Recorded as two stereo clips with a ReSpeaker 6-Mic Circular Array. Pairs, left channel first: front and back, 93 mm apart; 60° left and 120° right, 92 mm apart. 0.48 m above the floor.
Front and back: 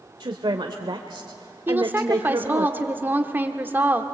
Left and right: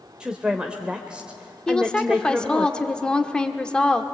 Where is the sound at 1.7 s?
130° left, 1.3 m.